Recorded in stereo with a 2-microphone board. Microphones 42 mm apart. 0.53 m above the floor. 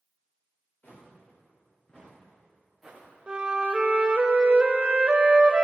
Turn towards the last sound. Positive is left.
turn(degrees=-25)  # may be behind; listen again after turning